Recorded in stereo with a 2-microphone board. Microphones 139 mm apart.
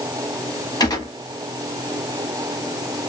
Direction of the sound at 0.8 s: 30° left (ahead or behind).